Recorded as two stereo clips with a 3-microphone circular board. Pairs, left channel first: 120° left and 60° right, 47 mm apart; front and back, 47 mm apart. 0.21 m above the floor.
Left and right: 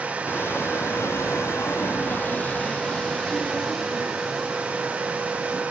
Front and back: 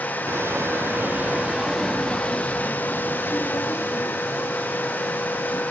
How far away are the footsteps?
About 1.5 m.